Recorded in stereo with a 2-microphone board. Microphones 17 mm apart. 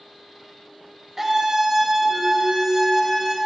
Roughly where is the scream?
Right.